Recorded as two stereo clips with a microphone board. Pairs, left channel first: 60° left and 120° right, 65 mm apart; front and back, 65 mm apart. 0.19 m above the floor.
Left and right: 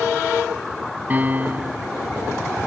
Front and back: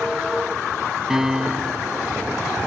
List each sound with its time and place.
1.1 s a piano: 110° right